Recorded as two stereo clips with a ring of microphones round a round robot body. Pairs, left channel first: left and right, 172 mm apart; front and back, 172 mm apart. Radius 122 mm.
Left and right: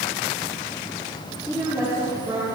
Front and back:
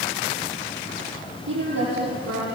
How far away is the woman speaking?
About 10 m.